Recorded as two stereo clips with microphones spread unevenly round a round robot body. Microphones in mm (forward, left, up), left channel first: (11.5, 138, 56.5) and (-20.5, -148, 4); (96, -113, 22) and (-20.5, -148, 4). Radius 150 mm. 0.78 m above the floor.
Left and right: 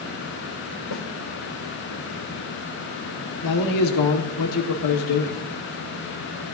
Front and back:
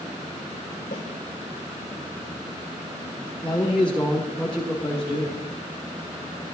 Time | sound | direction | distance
0.9 | a snare drum | 65° left | 2.5 m
3.4 | a man speaking | 105° left | 1.7 m